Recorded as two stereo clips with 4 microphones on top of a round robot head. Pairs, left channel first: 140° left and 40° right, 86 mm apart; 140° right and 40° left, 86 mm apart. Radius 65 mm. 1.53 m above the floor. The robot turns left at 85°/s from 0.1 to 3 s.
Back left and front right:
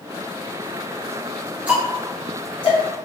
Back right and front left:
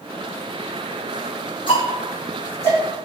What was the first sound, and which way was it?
Ticking, 115° right.